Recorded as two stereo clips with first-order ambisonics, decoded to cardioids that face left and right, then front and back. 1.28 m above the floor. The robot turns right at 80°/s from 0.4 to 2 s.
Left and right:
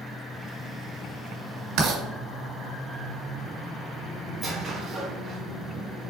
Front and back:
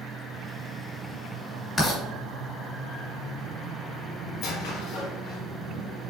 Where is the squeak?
20° right, 1.6 m.